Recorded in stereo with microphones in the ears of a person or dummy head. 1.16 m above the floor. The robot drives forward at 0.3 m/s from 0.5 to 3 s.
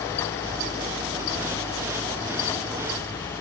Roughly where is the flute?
I don't hear a flute.